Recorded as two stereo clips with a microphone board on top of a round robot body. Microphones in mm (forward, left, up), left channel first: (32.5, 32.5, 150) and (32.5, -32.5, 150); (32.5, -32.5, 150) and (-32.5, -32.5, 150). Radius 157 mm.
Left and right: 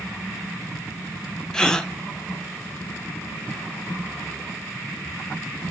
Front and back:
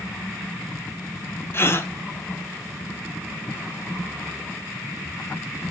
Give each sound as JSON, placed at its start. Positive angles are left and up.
{"t": 1.5, "sound": "a gasp", "azimuth_deg": 15, "distance_m": 1.3}